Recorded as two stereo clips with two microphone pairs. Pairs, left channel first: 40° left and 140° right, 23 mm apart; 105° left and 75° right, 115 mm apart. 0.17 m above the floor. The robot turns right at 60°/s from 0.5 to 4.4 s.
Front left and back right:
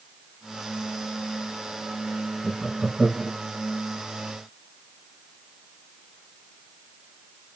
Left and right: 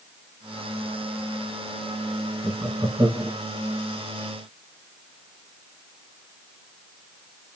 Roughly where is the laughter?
Behind right.